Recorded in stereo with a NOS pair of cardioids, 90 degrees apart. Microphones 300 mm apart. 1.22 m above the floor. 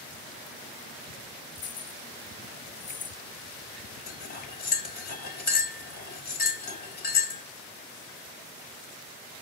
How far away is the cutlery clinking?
About 3 m.